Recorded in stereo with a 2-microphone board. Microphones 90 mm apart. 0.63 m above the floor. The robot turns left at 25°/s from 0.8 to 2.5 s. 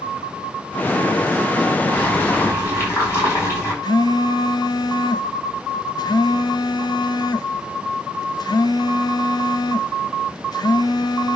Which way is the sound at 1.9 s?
15° left (ahead or behind).